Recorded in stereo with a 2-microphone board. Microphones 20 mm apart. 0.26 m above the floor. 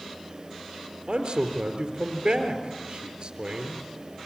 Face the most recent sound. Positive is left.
turn(degrees=-50)  # may be behind; listen again after turning